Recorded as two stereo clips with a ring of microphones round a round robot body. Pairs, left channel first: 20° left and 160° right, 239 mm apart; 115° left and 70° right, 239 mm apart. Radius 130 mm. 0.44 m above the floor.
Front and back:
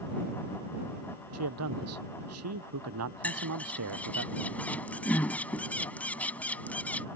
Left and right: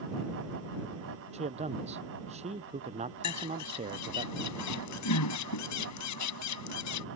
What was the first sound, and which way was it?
A man speaking, 135° right.